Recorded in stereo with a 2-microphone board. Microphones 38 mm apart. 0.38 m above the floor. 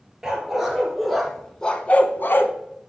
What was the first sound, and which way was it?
A dog barking, 10° right (ahead or behind).